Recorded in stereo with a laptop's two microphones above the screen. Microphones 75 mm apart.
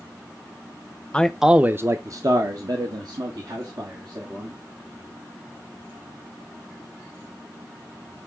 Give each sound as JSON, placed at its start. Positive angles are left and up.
{"t": 1.1, "sound": "a man speaking", "side_deg": 15, "distance_m": 0.6}